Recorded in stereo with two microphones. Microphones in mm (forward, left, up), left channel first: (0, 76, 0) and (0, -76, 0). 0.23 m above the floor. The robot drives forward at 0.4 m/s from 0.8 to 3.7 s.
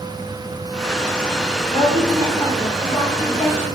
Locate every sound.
1.7 s a woman speaking: 30° left (ahead or behind), 1.7 m